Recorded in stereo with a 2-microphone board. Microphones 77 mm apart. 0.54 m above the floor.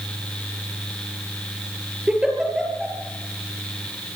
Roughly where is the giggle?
Centre.